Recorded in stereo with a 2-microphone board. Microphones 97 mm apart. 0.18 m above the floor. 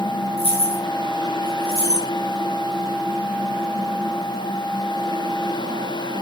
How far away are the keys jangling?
About 5.5 m.